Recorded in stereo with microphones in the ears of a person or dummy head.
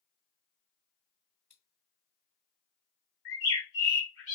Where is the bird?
65° left (ahead or behind), 1.6 m.